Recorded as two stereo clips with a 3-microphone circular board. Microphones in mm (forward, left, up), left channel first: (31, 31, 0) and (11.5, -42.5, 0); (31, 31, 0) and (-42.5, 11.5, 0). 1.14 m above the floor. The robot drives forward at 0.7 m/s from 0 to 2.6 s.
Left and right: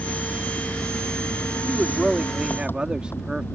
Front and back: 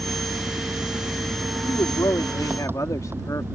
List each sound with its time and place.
0.0 s an engine running: 135° left
1.6 s a man speaking: 20° right; by 3.5 s 30° right